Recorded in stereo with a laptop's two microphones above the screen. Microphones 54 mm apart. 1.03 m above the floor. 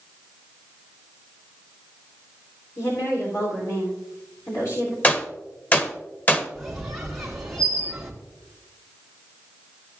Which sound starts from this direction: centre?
A squeak, at 6.5 s.